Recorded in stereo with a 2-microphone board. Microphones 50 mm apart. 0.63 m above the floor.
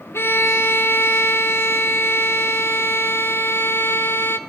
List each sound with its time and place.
0.1 s a violin: 50° left (ahead or behind), 0.7 m